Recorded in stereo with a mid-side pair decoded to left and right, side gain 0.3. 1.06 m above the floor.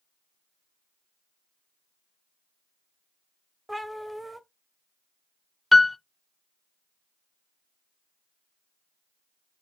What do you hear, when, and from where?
3.7 s a cat meowing: 20° right, 1.1 m
5.7 s a piano: 10° left, 0.5 m